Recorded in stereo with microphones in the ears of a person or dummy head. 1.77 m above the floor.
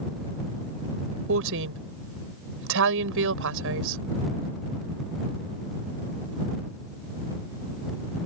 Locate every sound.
1.3 s a woman speaking: 65° right (ahead or behind)